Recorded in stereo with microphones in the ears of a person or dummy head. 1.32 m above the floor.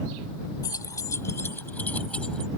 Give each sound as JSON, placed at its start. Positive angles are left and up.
{"t": 0.6, "sound": "keys jangling", "side_deg": 15}